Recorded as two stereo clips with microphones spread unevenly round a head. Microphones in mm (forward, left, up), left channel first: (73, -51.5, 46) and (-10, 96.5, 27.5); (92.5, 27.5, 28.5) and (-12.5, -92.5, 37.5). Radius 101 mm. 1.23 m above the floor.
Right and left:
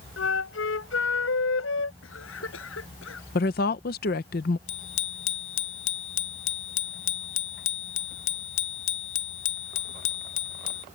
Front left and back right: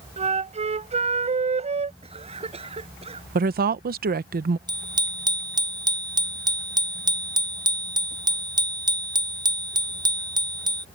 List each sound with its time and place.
0.2 s a flute: 85° right
2.0 s a cough: 80° right
3.4 s a woman speaking: 105° right
4.7 s a bicycle bell: 70° right